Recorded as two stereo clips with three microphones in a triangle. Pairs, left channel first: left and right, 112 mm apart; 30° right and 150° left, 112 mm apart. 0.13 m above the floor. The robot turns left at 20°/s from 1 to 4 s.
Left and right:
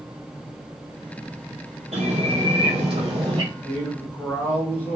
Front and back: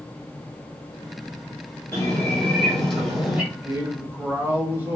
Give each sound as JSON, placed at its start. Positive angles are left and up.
{"t": 1.9, "sound": "a bird", "azimuth_deg": -100, "distance_m": 1.6}
{"t": 3.5, "sound": "a man speaking", "azimuth_deg": 125, "distance_m": 1.3}